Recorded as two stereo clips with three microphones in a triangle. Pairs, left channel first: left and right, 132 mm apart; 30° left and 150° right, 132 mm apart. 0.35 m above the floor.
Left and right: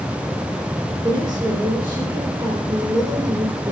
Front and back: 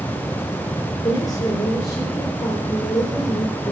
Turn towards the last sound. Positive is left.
turn(degrees=-35)